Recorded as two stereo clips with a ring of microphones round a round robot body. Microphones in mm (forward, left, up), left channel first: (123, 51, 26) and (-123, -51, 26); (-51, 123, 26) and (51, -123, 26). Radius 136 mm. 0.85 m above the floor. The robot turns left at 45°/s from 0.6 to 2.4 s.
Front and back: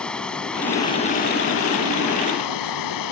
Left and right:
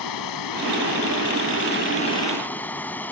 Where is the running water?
110° left; by 3.1 s 30° left.